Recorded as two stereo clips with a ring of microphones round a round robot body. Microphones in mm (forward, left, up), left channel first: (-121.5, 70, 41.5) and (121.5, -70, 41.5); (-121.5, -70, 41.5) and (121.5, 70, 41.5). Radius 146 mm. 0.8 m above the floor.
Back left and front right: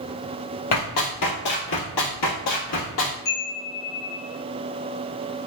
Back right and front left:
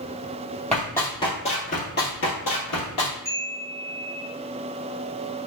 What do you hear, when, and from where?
0.7 s running footsteps: 120° left, 1.5 m; by 3.1 s 165° right, 1.5 m
3.2 s a chime: 130° left, 1.4 m